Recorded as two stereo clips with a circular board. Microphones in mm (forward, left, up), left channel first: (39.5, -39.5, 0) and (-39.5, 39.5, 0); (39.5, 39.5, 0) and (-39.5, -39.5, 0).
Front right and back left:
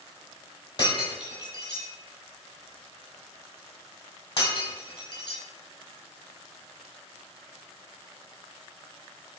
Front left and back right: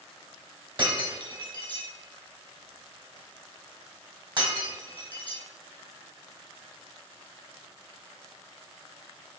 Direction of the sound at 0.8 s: 90° right.